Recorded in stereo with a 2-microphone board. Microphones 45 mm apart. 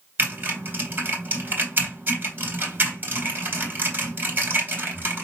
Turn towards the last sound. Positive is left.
turn(degrees=-40)  # may be behind; listen again after turning